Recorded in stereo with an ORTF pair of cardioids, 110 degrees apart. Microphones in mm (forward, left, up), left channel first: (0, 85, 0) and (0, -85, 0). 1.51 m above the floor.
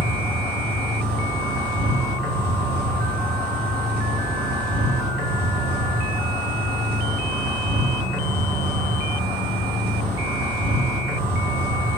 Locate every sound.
0.0 s an insect: 65° right, 1.2 m